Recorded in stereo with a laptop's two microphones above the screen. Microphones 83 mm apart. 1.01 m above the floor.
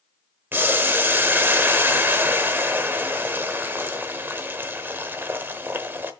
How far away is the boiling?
About 0.9 m.